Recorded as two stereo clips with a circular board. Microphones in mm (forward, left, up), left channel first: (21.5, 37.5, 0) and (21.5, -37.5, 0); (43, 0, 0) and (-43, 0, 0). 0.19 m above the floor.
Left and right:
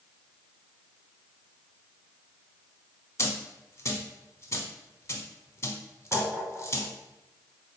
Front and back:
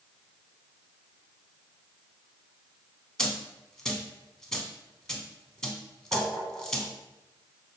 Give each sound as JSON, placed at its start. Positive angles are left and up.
{"t": 3.2, "sound": "a dropped coin", "azimuth_deg": 80, "distance_m": 0.5}
{"t": 6.1, "sound": "tapping", "azimuth_deg": -145, "distance_m": 1.7}